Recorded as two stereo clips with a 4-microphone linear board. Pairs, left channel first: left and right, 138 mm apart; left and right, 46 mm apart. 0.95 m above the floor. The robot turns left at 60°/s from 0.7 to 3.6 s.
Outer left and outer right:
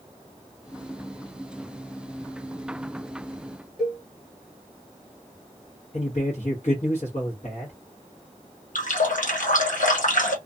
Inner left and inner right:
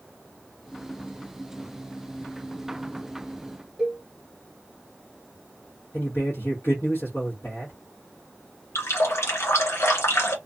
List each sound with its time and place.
3.8 s a cowbell: 5° right (ahead or behind), 1.3 m
5.9 s a man speaking: 60° left (ahead or behind), 1.1 m
8.8 s a running tap: 75° left (ahead or behind), 0.8 m